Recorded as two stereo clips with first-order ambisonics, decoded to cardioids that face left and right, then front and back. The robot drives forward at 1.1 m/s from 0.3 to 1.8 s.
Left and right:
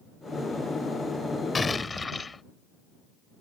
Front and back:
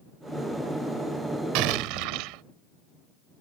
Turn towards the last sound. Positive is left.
turn(degrees=170)